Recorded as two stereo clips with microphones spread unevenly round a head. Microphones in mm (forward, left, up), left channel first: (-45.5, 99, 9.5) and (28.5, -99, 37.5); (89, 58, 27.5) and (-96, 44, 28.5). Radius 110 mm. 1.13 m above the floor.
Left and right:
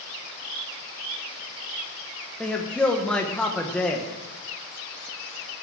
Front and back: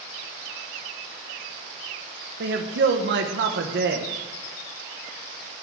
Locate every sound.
2.4 s a man speaking: 170° right, 1.1 m